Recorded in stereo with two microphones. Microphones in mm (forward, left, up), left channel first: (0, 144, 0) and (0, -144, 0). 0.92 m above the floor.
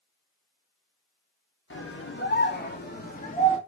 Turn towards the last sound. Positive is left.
turn(degrees=25)  # may be behind; listen again after turning